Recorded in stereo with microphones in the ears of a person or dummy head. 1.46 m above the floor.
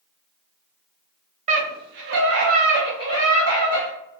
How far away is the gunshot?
I don't hear a gunshot.